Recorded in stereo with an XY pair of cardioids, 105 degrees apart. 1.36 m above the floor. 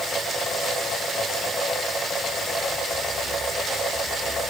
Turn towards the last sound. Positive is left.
No sound to turn to.